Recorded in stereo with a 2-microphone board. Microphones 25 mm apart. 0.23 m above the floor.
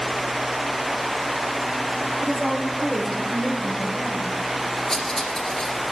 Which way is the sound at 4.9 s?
20° left (ahead or behind).